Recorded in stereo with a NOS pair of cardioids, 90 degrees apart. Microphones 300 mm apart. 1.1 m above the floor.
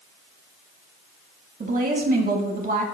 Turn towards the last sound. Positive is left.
turn(degrees=-30)